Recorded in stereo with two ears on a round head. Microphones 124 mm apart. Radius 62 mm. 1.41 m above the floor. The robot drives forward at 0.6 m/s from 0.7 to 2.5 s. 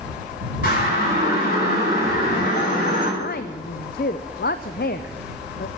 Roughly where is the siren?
Left.